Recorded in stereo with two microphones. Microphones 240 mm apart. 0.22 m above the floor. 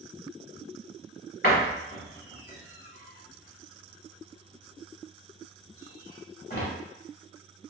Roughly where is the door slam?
Left.